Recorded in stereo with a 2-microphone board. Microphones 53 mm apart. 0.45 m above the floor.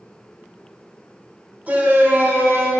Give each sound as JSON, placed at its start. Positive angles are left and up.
{"t": 1.7, "sound": "a shout", "side_deg": -30, "distance_m": 1.5}